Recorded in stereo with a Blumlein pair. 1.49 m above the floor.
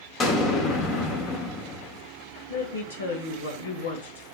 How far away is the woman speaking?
About 1.4 m.